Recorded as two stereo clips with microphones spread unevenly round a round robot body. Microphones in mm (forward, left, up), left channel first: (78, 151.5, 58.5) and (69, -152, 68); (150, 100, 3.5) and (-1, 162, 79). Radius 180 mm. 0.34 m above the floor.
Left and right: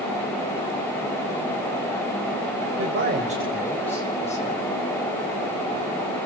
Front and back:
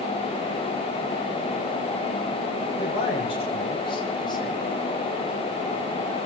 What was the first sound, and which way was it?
A man speaking, 55° right.